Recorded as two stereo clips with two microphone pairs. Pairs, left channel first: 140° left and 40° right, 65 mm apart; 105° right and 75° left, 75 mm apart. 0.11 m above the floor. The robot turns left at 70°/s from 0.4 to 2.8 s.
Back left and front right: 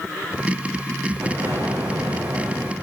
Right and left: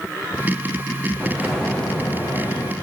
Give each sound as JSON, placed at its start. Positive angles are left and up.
{"t": 1.2, "sound": "an explosion", "azimuth_deg": 5, "distance_m": 3.0}